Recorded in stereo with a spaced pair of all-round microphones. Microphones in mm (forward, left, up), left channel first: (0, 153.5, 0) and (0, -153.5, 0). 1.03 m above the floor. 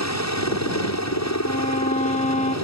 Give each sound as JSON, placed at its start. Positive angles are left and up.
{"t": 0.0, "sound": "a helicopter", "side_deg": 60}
{"t": 1.4, "sound": "a violin", "side_deg": 25}